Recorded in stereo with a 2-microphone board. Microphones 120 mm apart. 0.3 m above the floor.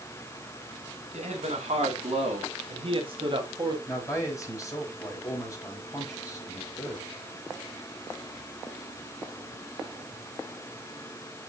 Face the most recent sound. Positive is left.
turn(degrees=25)  # may be behind; listen again after turning